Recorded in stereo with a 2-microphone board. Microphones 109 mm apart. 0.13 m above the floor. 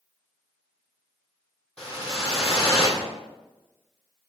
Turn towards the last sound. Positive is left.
turn(degrees=10)  # may be behind; listen again after turning